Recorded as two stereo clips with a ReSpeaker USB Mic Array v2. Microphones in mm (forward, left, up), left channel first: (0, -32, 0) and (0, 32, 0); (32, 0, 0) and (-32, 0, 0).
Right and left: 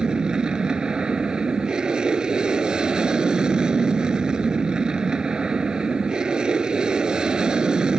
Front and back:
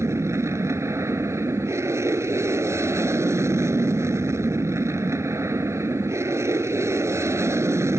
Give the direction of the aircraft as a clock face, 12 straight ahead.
6 o'clock.